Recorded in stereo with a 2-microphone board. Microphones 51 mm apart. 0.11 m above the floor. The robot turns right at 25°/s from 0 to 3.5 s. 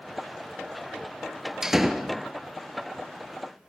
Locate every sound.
1.6 s a door slam: 10° right (ahead or behind), 1.5 m; by 2.2 s 5° left (ahead or behind), 1.5 m